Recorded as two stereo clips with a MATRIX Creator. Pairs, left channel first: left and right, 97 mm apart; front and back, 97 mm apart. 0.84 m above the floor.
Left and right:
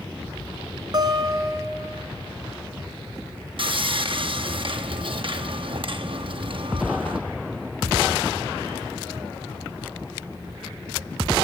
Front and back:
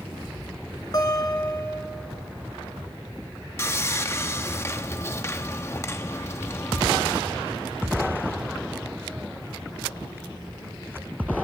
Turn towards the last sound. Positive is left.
turn(degrees=-60)